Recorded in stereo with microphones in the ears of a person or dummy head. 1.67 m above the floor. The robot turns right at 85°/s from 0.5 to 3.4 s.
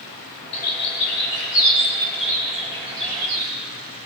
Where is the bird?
35° left (ahead or behind), 5 m; by 3.5 s 80° right, 5 m.